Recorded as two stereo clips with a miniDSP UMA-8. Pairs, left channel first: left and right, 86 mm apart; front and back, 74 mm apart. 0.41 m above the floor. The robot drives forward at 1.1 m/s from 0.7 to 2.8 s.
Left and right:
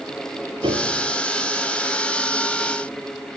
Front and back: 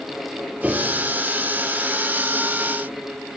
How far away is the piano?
About 3.5 m.